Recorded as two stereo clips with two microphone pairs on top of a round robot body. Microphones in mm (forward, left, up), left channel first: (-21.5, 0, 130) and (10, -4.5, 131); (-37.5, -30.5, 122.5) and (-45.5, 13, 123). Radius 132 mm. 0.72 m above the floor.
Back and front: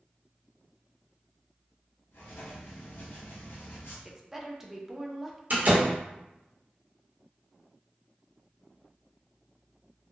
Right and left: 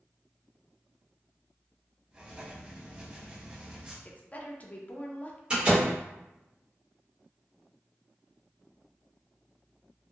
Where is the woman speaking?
90° right, 0.6 m.